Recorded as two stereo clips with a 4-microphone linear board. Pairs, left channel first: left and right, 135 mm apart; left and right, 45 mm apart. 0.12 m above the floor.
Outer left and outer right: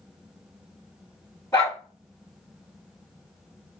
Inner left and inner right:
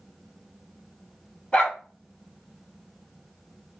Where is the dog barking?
20° left (ahead or behind), 1.0 m.